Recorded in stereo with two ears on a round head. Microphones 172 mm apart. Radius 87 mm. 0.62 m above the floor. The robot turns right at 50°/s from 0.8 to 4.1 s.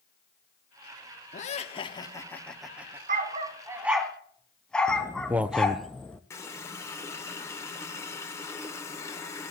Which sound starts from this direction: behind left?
Laughter, at 1.3 s.